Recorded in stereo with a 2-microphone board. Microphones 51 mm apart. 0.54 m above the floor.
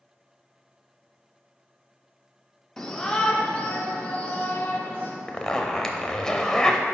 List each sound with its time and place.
2.8 s a shout: 10° left (ahead or behind), 1.1 m; by 5.1 s 30° left (ahead or behind), 2 m
5.3 s a zipper: 10° left (ahead or behind), 0.8 m